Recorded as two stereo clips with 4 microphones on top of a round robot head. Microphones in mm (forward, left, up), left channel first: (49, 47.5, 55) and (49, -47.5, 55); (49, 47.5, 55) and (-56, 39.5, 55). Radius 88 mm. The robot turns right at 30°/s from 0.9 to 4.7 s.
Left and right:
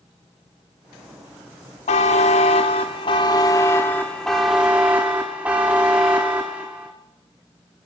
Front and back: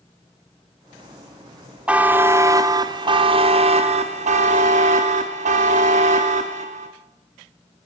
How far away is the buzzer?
About 1.0 m.